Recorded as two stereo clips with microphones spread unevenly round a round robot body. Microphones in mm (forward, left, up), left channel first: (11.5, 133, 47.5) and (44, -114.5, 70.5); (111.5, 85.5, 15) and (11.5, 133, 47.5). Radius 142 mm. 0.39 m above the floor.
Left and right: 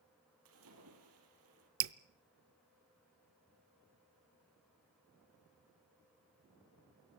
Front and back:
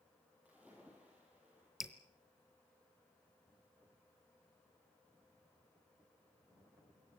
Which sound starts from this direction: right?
Dripping, at 1.8 s.